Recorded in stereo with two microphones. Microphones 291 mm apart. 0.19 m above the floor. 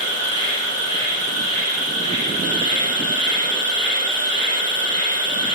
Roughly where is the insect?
Right.